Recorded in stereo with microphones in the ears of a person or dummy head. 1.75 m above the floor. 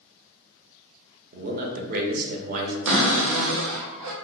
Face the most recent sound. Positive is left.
turn(degrees=-85)